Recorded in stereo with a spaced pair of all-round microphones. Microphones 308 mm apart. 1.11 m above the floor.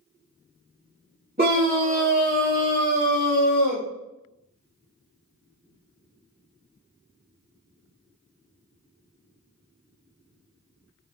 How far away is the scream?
About 1.0 m.